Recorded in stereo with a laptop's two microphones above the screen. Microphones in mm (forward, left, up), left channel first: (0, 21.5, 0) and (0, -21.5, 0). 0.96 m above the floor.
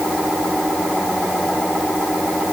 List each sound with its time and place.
Only background noise.